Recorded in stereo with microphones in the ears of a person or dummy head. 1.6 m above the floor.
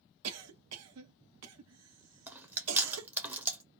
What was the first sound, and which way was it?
A cough, 80° right.